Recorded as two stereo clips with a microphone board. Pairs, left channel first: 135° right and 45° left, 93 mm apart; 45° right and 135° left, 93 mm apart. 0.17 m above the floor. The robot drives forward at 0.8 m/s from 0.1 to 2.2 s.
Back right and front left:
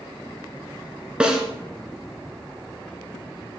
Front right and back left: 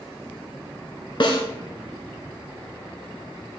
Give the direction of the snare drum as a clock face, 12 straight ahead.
1 o'clock.